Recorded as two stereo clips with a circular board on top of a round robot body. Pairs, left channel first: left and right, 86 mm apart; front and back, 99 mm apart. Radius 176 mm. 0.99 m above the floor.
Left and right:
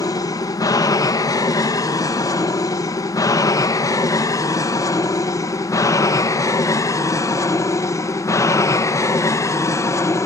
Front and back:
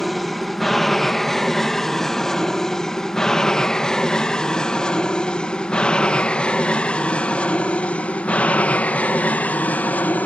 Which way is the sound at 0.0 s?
90° left.